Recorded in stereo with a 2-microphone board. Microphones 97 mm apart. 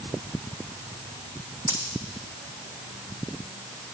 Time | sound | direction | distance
1.7 | a dropped coin | 20° right (ahead or behind) | 2.5 m